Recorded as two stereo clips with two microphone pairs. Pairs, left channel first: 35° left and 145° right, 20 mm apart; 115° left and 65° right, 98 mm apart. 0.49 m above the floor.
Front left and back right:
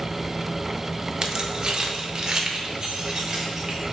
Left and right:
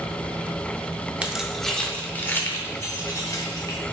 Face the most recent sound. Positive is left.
turn(degrees=160)